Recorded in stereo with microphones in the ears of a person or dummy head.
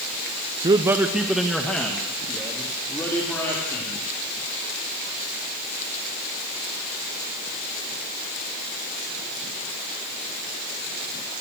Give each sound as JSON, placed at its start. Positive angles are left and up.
{"t": 0.6, "sound": "a man speaking", "side_deg": -30, "distance_m": 0.9}